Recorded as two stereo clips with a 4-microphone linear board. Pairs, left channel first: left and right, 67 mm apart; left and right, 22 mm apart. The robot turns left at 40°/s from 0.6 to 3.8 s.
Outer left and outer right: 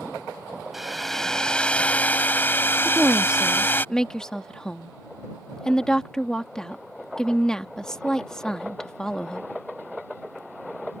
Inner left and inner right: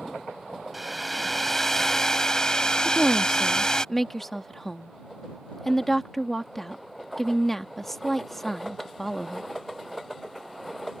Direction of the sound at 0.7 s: 175° right.